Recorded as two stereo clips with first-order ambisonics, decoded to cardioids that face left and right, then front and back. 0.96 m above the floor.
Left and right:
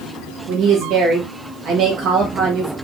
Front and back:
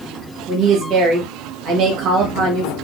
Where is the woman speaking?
140° right, 1.5 m.